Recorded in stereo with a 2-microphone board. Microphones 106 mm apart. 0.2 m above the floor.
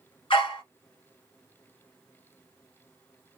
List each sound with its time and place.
0.3 s a dog barking: 55° left (ahead or behind), 1.1 m